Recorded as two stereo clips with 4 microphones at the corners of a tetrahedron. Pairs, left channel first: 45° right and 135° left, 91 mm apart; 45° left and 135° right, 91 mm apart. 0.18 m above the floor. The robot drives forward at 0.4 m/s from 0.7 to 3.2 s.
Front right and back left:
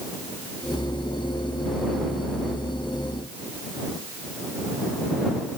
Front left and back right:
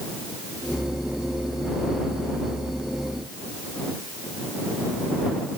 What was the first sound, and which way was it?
Only background noise.